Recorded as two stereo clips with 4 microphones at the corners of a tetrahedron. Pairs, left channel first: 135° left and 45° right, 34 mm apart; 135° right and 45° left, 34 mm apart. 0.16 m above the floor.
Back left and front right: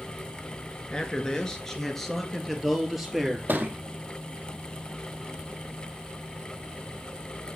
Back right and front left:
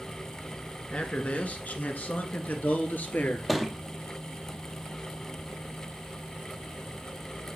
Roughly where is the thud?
Ahead right.